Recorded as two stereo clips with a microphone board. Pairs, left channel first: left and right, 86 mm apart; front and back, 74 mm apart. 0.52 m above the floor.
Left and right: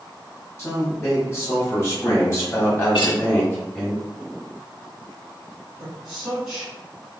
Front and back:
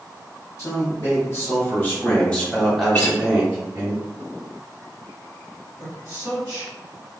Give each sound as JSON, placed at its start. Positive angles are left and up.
{"t": 0.6, "sound": "a man speaking", "azimuth_deg": 35, "distance_m": 1.6}
{"t": 2.9, "sound": "a guitar", "azimuth_deg": 60, "distance_m": 0.9}
{"t": 5.8, "sound": "a man speaking", "azimuth_deg": -10, "distance_m": 1.3}